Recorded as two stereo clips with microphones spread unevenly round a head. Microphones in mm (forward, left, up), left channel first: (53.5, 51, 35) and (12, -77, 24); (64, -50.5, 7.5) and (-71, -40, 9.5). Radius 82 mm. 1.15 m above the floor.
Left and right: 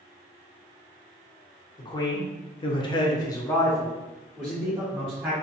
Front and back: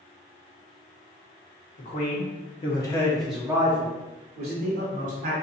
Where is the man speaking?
15° left, 1.0 m; by 5.3 s 175° left, 1.2 m.